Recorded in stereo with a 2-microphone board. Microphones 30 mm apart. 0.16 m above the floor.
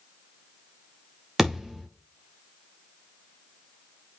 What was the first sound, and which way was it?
A thud, 10° right (ahead or behind).